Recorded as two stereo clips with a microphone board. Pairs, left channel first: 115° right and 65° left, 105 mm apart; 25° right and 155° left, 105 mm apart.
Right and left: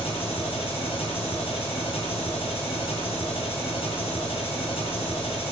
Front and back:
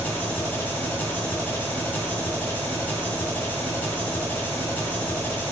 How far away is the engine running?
About 2.5 m.